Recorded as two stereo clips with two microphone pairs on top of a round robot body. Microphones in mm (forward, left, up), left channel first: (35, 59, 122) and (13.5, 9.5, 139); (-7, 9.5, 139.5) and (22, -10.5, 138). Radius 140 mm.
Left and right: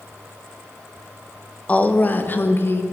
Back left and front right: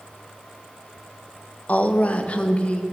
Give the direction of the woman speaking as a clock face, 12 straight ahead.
8 o'clock.